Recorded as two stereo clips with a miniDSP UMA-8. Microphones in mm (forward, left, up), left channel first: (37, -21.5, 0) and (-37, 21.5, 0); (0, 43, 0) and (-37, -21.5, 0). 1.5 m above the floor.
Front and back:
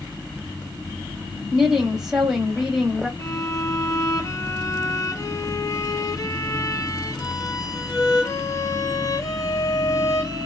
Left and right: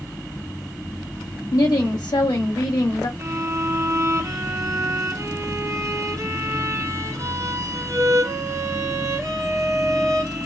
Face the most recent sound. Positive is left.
turn(degrees=-75)